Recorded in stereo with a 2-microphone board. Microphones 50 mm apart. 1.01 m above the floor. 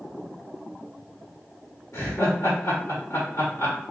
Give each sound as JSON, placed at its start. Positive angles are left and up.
{"t": 1.9, "sound": "laughter", "side_deg": 60, "distance_m": 1.5}